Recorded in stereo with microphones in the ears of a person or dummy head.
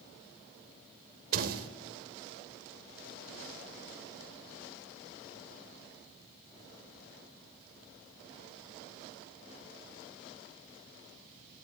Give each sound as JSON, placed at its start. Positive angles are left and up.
{"t": 1.3, "sound": "a door slam", "side_deg": -55, "distance_m": 3.5}